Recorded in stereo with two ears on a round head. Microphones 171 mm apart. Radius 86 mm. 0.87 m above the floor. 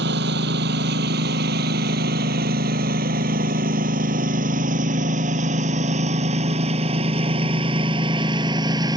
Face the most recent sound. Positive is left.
turn(degrees=-20)  # may be behind; listen again after turning